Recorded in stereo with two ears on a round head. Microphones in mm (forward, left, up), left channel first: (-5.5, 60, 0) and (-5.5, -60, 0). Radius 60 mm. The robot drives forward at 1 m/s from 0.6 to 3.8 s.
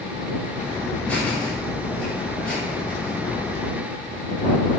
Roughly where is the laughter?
Centre.